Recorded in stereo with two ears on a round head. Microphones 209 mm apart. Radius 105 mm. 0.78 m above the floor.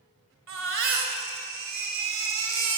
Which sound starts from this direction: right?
A baby crying, at 0.5 s.